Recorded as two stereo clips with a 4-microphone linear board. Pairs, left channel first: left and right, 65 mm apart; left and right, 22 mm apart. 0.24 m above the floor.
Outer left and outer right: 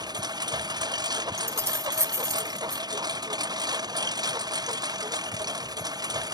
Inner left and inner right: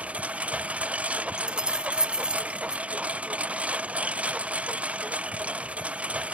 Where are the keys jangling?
45° right (ahead or behind).